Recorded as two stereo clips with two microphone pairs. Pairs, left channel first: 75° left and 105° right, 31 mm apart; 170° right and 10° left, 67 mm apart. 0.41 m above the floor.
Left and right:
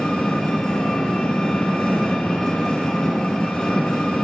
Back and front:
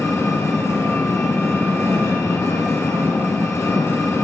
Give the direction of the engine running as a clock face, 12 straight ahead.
7 o'clock.